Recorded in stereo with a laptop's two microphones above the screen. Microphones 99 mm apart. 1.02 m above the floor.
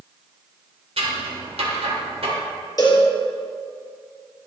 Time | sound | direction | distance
1.0 | scissors | 85° right | 2.5 m
2.8 | a cowbell | 40° left (ahead or behind) | 3.5 m